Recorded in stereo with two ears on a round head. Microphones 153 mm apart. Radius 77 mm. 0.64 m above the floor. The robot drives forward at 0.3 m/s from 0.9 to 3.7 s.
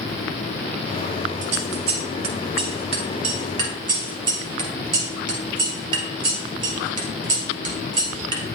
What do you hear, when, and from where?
1.4 s scissors: 45° right (ahead or behind), 1.2 m; by 8.6 s 30° right (ahead or behind), 1.7 m